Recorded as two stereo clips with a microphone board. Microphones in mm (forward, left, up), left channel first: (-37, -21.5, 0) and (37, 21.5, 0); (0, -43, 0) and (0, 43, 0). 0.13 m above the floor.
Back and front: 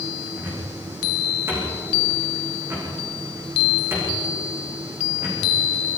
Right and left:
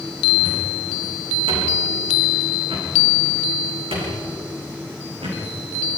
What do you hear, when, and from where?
0.4 s a cupboard door: 90° left, 7.5 m